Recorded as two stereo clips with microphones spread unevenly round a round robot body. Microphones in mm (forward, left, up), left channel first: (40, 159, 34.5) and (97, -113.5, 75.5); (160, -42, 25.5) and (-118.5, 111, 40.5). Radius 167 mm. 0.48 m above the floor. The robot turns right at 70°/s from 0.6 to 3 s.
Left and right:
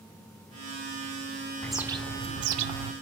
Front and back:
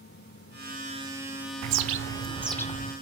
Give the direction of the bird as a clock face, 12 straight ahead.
6 o'clock.